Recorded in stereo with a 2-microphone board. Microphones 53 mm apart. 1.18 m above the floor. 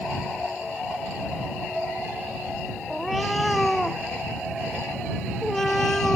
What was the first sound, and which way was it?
A cat meowing, 5° left (ahead or behind).